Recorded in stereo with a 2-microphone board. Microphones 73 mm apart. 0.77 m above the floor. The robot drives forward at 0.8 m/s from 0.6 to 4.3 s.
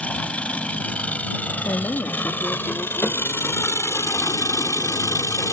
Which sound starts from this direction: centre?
An engine running, at 0.0 s.